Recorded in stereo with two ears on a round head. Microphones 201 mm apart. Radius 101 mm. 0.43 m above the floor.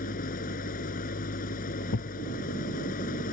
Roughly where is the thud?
Left.